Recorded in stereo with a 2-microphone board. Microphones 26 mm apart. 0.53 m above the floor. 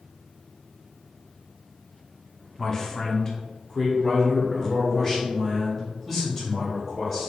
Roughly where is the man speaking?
Left.